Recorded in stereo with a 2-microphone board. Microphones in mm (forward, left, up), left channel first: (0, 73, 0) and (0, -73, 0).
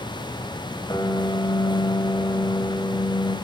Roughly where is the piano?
Left.